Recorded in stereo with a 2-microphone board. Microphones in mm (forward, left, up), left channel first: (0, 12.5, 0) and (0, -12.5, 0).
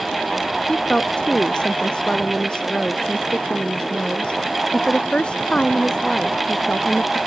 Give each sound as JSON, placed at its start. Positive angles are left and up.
{"t": 0.7, "sound": "a woman speaking", "side_deg": 35}